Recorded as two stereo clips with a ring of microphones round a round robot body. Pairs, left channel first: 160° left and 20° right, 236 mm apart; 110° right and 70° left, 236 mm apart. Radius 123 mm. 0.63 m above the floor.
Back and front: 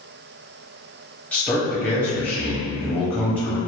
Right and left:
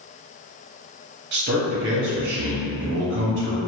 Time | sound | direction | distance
1.3 | a man speaking | 75° left | 0.9 m